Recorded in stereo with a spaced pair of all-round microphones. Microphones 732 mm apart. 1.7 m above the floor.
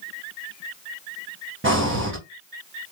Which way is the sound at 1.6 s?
15° right (ahead or behind).